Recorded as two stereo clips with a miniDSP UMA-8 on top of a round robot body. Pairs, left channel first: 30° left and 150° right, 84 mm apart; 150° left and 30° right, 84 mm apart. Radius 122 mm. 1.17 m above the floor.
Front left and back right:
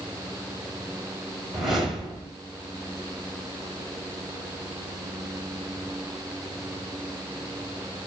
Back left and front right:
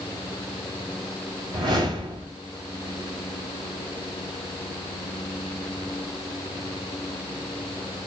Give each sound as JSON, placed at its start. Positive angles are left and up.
{"t": 1.5, "sound": "a whoosh", "azimuth_deg": -60, "distance_m": 4.0}